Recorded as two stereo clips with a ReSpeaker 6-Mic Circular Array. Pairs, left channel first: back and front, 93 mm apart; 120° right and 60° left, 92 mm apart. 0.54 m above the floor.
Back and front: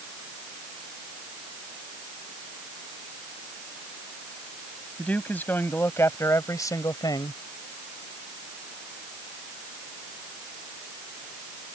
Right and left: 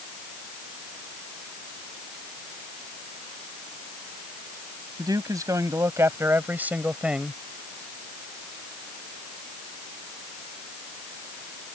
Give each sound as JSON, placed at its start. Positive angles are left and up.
{"t": 5.0, "sound": "a man speaking", "azimuth_deg": 105}